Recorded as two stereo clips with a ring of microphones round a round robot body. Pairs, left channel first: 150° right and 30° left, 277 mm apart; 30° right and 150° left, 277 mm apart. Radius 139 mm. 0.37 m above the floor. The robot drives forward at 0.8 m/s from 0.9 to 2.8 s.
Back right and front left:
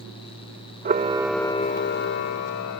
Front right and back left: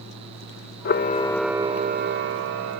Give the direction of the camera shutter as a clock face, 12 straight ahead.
12 o'clock.